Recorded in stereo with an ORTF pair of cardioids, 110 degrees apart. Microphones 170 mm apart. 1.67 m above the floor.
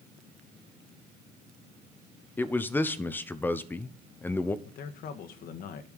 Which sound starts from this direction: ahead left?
A man speaking, at 4.7 s.